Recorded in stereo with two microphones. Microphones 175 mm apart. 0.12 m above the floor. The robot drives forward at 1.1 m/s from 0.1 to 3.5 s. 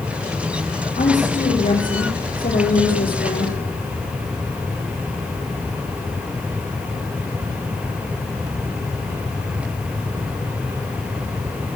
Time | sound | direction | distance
1.0 | a woman speaking | 45° left (ahead or behind) | 6.5 m